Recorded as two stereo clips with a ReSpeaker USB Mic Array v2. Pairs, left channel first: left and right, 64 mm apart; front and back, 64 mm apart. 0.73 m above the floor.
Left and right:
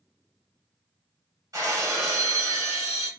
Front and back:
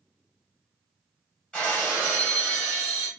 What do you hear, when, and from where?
1.5 s breaking glass: 75° right, 1.6 m